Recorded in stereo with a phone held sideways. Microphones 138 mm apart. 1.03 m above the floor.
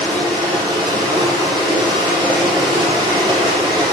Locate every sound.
0.0 s running water: 30° right (ahead or behind), 4.5 m